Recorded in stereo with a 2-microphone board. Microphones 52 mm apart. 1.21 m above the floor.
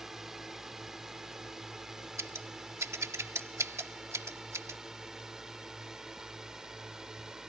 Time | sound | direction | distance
0.0 | a drone | 5° right (ahead or behind) | ?
2.2 | scissors | 70° right (ahead or behind) | ?